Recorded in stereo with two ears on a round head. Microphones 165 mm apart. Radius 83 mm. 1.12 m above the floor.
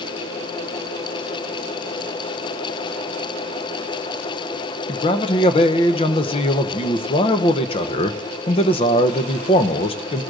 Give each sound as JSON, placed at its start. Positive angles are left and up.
{"t": 4.9, "sound": "a man speaking", "side_deg": 30, "distance_m": 0.7}